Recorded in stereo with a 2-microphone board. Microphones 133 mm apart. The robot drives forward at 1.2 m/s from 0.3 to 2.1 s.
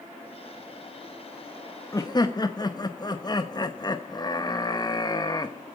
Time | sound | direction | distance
1.9 | laughter | 25° left (ahead or behind) | 1.1 m